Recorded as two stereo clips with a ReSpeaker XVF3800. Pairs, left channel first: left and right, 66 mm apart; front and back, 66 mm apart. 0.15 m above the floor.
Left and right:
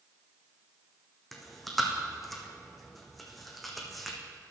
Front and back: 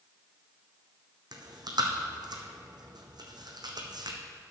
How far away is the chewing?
About 1.4 m.